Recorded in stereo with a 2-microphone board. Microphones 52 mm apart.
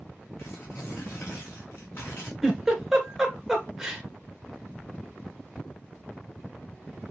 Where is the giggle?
5° right (ahead or behind), 1.7 m.